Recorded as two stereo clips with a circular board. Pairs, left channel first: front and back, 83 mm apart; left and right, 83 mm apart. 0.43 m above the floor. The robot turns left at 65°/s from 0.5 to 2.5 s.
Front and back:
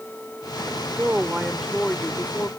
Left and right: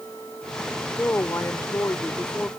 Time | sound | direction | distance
1.0 | a woman speaking | 135° left | ?